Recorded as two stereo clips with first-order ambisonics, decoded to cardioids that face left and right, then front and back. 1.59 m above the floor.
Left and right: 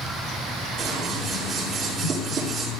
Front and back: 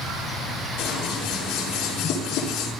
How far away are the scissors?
About 6 m.